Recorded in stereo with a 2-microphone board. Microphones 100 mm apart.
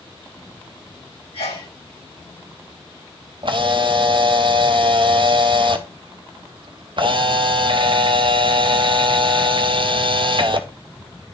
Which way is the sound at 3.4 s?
55° right (ahead or behind).